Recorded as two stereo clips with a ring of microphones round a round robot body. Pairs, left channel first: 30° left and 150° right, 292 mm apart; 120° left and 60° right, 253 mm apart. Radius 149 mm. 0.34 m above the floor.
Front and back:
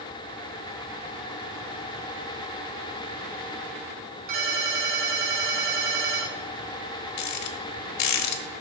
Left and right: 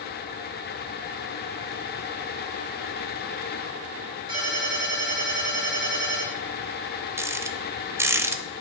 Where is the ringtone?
135° right, 3.5 m.